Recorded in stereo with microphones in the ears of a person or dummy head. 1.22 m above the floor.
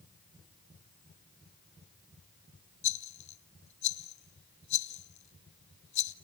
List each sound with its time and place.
2.8 s a rattle: 35° left (ahead or behind), 1.1 m